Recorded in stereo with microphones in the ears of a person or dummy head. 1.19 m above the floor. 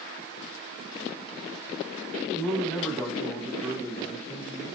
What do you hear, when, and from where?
2.3 s a man speaking: 5° left (ahead or behind), 0.9 m